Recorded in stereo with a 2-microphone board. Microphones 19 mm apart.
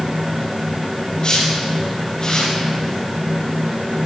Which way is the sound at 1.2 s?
55° left (ahead or behind).